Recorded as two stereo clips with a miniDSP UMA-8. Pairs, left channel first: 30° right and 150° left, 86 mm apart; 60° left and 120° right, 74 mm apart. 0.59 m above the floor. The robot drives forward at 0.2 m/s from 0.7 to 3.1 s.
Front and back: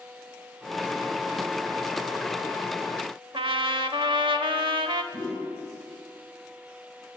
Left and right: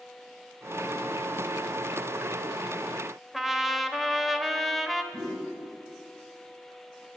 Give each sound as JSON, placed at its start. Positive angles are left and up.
{"t": 3.3, "sound": "a trumpet", "azimuth_deg": 150, "distance_m": 0.7}
{"t": 5.1, "sound": "a whoosh", "azimuth_deg": -170, "distance_m": 4.5}